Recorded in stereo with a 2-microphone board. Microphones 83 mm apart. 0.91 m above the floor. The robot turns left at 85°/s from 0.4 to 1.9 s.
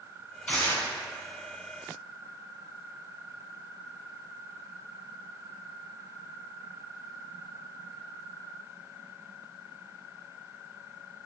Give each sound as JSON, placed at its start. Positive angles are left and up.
{"t": 0.5, "sound": "tearing paper", "azimuth_deg": 165, "distance_m": 1.6}